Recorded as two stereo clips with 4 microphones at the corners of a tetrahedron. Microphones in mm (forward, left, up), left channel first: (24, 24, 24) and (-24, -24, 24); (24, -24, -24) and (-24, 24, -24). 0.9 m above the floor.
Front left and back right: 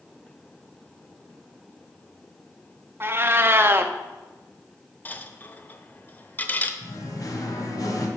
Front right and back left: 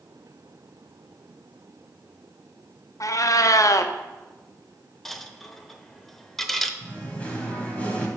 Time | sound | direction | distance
3.0 | a cat meowing | 80° right | 0.5 m
5.0 | a dropped coin | 35° left | 0.6 m
6.8 | singing | 25° left | 1.5 m